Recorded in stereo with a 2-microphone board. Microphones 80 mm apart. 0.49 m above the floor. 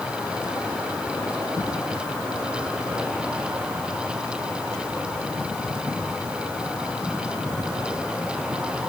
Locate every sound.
Only background noise.